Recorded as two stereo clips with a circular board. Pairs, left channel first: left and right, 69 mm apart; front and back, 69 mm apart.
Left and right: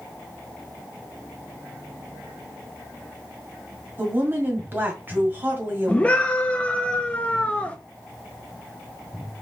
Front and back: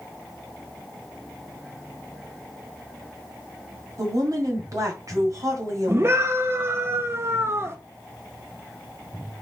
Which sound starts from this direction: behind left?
A scream, at 5.9 s.